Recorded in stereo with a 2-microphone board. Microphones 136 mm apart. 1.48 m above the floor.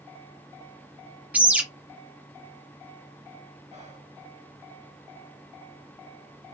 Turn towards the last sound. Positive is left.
turn(degrees=-55)  # may be behind; listen again after turning